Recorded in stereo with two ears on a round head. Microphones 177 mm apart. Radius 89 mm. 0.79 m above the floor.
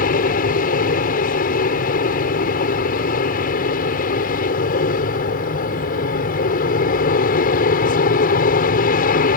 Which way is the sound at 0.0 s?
45° left (ahead or behind).